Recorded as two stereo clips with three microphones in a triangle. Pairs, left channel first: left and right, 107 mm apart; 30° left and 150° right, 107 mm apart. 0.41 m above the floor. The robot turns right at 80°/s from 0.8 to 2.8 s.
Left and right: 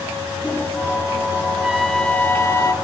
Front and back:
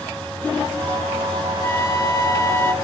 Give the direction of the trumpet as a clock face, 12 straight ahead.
1 o'clock.